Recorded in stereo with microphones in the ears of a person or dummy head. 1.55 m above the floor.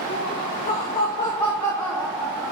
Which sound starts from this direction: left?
Laughter, at 0.1 s.